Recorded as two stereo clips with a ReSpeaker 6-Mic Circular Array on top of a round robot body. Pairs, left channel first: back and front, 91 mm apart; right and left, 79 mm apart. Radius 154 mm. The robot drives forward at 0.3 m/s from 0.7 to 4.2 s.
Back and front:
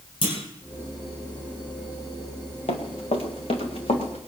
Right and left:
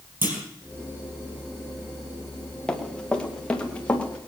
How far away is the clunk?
About 5.5 m.